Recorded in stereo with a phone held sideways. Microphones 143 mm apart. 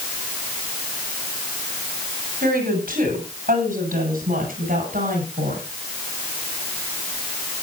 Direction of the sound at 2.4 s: 85° right.